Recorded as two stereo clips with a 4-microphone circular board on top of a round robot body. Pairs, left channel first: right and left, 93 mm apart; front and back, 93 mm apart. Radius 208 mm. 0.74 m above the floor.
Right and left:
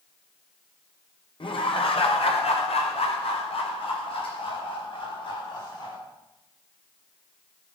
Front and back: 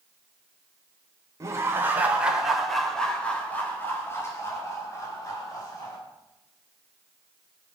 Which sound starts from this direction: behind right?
Laughter, at 1.4 s.